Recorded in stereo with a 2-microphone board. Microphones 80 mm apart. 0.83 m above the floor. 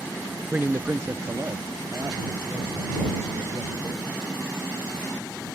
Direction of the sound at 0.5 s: 20° right (ahead or behind).